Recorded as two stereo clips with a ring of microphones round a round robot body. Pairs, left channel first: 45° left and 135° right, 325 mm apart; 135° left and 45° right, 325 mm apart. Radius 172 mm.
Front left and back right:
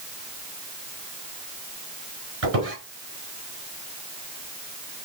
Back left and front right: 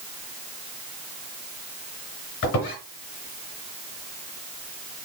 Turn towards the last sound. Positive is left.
turn(degrees=175)